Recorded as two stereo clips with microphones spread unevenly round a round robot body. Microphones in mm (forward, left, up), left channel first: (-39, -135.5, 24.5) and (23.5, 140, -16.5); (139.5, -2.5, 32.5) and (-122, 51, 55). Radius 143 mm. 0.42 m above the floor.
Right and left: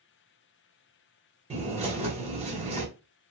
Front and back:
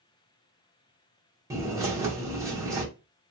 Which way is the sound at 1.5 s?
90° left.